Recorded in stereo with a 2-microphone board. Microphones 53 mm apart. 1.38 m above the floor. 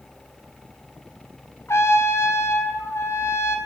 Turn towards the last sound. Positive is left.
turn(degrees=55)  # may be behind; listen again after turning